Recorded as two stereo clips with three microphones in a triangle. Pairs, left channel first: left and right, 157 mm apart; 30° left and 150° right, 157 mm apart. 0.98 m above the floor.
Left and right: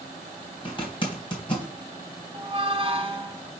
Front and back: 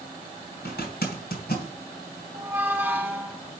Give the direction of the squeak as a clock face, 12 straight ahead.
3 o'clock.